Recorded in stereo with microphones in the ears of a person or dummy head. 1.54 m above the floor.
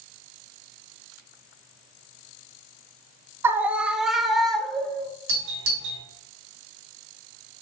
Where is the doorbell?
80° right, 3.5 m.